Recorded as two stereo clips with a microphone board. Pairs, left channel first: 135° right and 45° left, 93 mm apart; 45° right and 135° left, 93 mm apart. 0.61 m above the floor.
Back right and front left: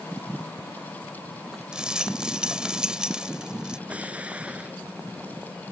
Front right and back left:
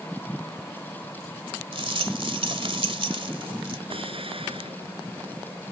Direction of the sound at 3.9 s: 120° left.